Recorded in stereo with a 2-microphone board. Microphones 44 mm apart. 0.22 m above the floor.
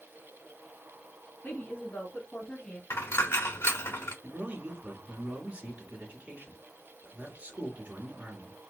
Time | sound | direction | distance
1.4 | a woman speaking | 35° left (ahead or behind) | 2.5 m
2.9 | a dropped coin | 80° left | 1.3 m
4.2 | a man speaking | 30° right (ahead or behind) | 2 m